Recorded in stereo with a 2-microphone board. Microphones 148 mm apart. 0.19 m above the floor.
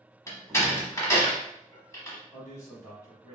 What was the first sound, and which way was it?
A door slam, 20° left (ahead or behind).